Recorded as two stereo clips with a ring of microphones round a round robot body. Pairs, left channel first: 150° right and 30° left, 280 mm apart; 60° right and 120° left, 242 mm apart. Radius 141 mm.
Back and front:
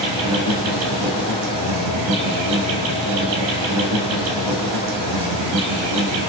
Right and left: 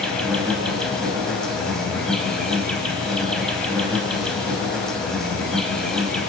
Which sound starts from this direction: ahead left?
An insect, at 0.0 s.